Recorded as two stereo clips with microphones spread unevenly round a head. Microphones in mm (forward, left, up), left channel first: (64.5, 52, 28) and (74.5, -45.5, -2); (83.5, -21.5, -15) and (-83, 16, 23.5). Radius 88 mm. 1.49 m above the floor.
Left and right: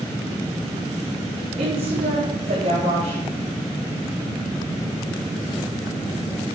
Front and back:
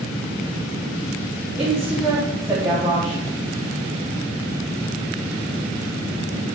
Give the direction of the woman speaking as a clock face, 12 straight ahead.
4 o'clock.